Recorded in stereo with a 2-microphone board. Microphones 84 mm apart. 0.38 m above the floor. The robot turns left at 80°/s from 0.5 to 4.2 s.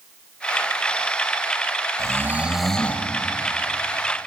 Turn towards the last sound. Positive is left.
turn(degrees=55)